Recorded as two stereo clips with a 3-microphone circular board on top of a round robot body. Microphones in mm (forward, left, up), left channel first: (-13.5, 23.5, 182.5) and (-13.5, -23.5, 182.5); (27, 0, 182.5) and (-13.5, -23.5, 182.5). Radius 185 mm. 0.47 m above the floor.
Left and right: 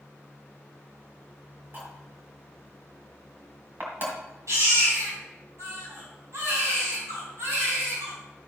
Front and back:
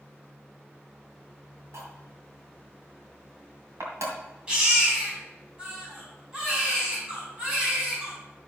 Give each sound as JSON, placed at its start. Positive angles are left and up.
{"t": 1.7, "sound": "cutlery clinking", "azimuth_deg": -135, "distance_m": 2.5}
{"t": 4.5, "sound": "a baby crying", "azimuth_deg": -85, "distance_m": 4.0}